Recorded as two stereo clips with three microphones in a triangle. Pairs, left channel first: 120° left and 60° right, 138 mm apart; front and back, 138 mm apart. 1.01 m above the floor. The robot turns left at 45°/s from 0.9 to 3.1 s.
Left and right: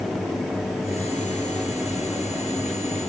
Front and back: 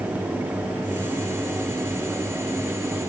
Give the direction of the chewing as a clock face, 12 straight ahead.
I don't hear chewing.